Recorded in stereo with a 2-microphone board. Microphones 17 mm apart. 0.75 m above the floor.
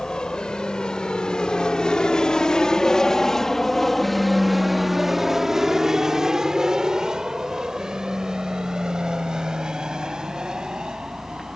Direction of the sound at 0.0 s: 60° left (ahead or behind).